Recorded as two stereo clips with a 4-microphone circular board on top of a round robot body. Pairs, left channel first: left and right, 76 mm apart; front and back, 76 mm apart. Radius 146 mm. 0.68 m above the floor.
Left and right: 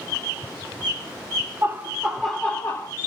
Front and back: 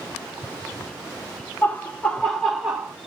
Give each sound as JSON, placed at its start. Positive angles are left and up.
{"t": 1.6, "sound": "laughter", "azimuth_deg": -55, "distance_m": 1.2}